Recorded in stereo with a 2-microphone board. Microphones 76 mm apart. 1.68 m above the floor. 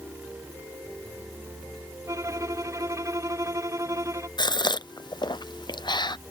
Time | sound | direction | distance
2.1 | a violin | 45° right (ahead or behind) | ?
4.4 | a gasp | 80° left | ?